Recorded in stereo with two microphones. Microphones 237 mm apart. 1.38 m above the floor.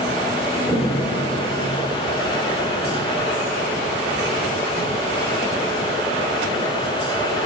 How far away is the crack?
About 2.5 m.